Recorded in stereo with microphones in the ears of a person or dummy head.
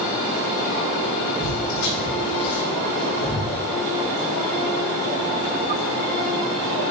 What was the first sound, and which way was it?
Footsteps, 45° left (ahead or behind).